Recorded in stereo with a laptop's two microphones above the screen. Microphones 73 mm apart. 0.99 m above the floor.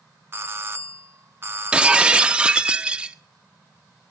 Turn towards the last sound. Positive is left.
turn(degrees=-15)  # may be behind; listen again after turning